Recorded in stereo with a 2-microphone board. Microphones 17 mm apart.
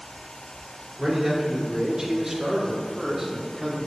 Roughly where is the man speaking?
Centre.